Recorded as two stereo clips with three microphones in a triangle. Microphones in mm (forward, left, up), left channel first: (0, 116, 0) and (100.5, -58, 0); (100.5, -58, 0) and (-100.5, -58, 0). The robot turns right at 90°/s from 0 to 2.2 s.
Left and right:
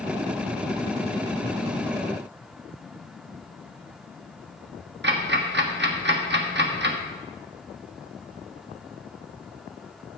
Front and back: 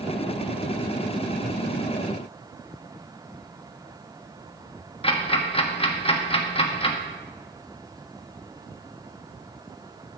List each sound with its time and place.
5.0 s ticking: 60° right, 1.2 m